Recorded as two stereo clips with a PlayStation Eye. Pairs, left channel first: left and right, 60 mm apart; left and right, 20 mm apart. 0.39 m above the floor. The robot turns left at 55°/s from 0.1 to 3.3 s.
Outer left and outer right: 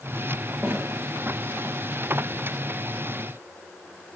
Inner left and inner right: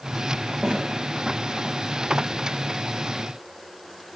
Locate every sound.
0.6 s a snare drum: 40° right (ahead or behind), 9 m; by 0.8 s 50° right (ahead or behind), 9 m